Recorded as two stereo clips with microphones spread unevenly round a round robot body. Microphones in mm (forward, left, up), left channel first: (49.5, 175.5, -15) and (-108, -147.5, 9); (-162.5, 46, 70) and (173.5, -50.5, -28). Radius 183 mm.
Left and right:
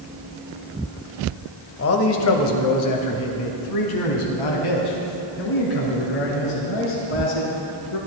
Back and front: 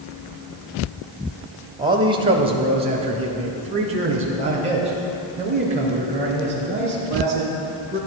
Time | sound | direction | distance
1.8 | a man speaking | 35° left | 1.1 m